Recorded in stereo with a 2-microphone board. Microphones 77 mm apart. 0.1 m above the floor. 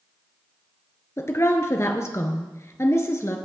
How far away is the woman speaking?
About 1.2 m.